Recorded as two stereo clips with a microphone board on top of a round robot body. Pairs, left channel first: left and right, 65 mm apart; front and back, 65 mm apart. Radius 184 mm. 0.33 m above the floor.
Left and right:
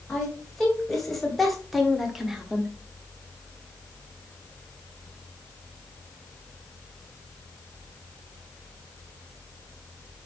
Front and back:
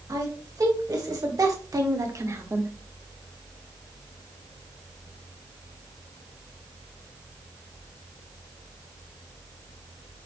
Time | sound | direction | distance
0.1 | a woman speaking | 175° left | 4.5 m